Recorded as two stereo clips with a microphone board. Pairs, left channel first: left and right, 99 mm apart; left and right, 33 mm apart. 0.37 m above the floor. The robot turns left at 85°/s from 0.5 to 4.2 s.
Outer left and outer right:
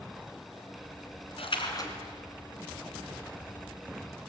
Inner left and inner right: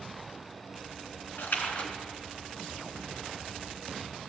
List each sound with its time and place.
1.4 s a splash: 75° left, 3 m; by 1.9 s 30° left, 3 m